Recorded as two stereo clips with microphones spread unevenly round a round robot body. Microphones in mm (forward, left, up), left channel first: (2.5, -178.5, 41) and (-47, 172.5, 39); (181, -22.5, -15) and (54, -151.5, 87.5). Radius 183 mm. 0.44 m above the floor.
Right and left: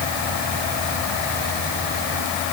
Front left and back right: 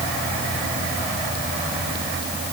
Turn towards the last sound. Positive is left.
No sound to turn to.